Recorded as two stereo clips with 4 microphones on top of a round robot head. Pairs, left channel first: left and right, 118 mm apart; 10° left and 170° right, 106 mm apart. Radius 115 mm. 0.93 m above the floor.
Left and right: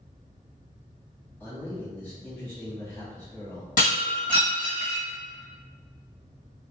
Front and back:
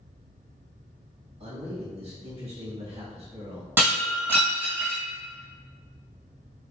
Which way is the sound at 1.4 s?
165° left.